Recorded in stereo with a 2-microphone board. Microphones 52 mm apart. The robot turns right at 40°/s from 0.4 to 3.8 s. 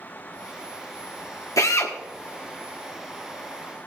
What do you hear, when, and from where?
1.6 s a drill: 75° left (ahead or behind), 1.5 m; by 1.9 s 60° left (ahead or behind), 1.5 m